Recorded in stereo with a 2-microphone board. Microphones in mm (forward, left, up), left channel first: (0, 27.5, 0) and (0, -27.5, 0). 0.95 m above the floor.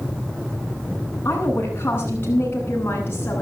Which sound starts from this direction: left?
A woman speaking, at 1.2 s.